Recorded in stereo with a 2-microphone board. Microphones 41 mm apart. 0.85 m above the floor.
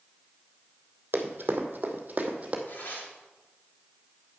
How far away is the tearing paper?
About 2.5 m.